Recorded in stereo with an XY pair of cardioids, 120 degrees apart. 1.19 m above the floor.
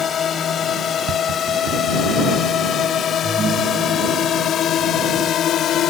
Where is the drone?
45° left; by 5.9 s 60° left.